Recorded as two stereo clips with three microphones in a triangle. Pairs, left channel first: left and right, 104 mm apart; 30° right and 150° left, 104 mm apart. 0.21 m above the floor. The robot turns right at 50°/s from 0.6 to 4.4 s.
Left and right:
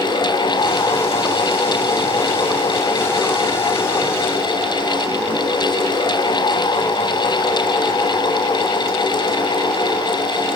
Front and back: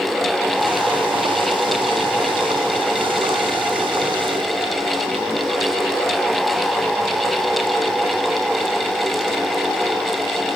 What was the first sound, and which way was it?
Only background noise.